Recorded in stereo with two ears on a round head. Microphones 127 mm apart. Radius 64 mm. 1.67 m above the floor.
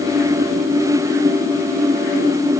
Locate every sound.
Only background noise.